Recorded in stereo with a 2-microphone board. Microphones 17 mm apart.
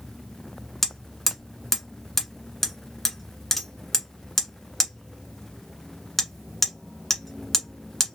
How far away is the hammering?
About 1.2 m.